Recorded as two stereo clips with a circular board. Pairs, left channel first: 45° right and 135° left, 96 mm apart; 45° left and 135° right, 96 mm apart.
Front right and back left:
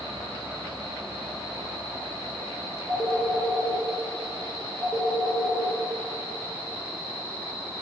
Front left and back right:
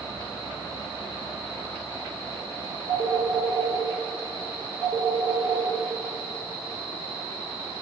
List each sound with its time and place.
2.9 s a phone ringing: 15° left, 1.3 m